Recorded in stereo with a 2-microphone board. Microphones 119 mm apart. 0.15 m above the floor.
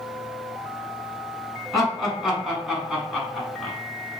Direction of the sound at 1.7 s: Centre (ahead or behind).